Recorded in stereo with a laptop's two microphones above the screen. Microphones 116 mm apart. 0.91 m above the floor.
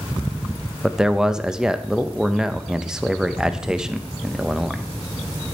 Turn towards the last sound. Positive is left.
turn(degrees=-5)  # may be behind; listen again after turning